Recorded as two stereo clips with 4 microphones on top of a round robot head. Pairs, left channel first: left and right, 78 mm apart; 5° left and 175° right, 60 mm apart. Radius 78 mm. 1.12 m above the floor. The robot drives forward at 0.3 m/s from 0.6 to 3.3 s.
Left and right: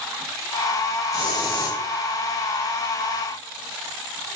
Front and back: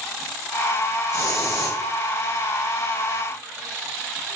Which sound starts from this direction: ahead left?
A hiss, at 1.1 s.